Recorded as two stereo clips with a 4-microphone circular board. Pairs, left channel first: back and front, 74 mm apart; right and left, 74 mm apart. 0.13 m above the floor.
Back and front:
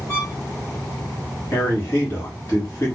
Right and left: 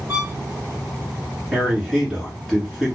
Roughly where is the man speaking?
Behind.